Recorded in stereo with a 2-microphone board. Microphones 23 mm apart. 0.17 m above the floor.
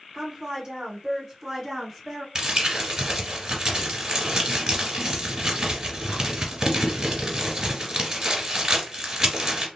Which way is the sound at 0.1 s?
25° right (ahead or behind).